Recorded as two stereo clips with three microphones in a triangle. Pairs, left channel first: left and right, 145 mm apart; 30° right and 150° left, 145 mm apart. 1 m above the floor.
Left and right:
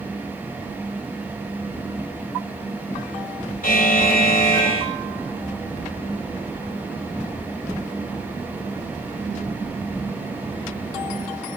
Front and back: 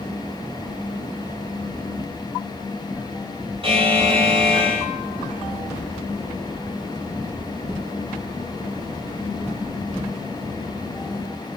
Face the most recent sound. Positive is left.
turn(degrees=100)